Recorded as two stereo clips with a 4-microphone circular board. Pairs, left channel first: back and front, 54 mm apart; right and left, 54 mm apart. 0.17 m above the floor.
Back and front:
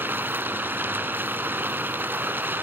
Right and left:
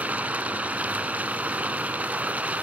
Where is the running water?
35° left, 1.3 m.